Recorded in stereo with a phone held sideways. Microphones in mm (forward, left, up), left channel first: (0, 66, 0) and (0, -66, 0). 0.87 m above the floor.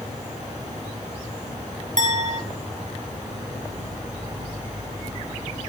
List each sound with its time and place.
0.0 s an insect: 25° right (ahead or behind), 6.5 m
2.0 s a clink: 65° right (ahead or behind), 1.5 m